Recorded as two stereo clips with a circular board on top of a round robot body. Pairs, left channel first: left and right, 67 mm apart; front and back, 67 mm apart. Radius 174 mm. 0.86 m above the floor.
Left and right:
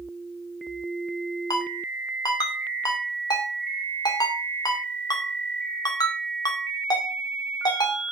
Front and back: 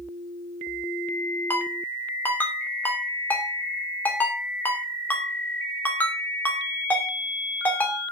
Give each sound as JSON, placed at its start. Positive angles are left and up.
{"t": 1.5, "sound": "a ringtone", "azimuth_deg": 65, "distance_m": 2.5}